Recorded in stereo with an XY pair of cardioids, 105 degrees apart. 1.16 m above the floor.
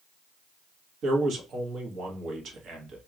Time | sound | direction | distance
1.0 | a man speaking | 65° right | 1.3 m